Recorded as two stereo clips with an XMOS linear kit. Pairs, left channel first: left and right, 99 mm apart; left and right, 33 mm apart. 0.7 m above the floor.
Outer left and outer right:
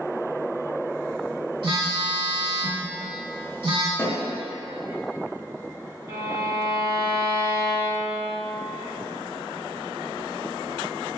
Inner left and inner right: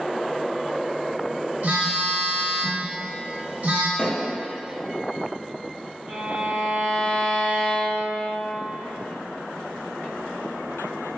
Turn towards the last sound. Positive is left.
turn(degrees=-35)  # may be behind; listen again after turning